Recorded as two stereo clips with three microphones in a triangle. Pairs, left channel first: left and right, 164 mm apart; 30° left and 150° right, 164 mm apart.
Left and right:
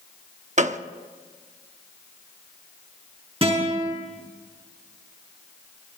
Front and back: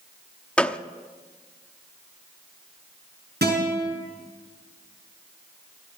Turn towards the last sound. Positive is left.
turn(degrees=-145)